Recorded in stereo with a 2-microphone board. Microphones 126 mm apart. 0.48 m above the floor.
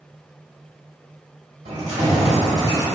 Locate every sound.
1.6 s keys jangling: 60° right (ahead or behind), 1.5 m; by 2.9 s 30° right (ahead or behind), 1.4 m